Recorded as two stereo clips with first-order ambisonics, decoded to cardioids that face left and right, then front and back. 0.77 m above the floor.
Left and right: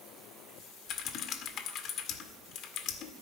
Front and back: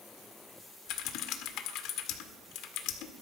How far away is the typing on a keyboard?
About 1.8 m.